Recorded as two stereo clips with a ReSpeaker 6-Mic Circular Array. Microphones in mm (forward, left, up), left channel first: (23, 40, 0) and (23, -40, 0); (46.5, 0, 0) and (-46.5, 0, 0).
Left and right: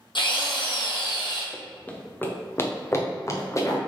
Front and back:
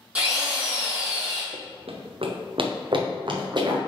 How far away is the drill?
About 3 m.